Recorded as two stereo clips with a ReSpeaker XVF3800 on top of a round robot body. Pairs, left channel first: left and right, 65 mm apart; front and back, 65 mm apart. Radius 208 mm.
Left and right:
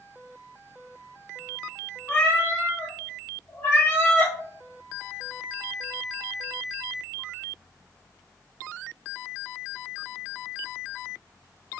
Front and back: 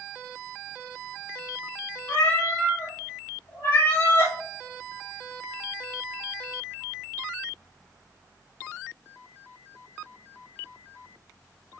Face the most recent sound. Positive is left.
turn(degrees=30)